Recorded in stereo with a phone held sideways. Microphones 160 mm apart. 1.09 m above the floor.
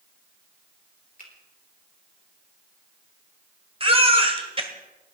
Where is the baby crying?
35° right (ahead or behind), 1.6 m.